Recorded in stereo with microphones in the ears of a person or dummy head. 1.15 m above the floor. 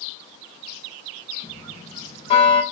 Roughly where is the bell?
Left.